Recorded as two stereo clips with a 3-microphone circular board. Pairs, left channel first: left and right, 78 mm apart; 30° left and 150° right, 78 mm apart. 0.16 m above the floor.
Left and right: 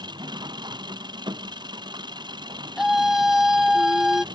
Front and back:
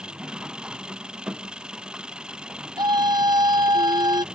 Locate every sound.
0.0 s an engine running: 70° right
2.8 s a scream: 175° right